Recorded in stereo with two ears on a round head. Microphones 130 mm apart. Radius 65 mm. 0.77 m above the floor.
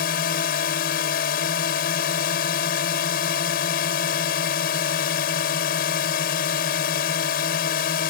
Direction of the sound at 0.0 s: 65° left (ahead or behind).